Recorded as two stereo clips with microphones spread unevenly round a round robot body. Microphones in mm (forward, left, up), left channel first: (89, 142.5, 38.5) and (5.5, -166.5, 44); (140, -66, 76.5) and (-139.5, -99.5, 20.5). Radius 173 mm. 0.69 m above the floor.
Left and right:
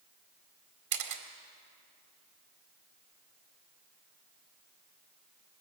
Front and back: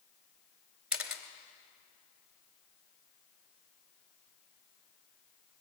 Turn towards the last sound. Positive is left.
turn(degrees=-85)